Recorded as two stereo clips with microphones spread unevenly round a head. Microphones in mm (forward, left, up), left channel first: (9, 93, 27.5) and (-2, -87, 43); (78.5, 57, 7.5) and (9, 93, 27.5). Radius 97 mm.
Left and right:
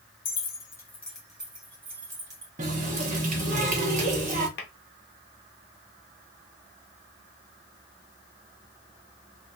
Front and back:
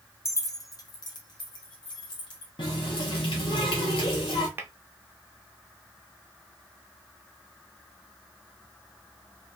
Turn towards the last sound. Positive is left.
turn(degrees=115)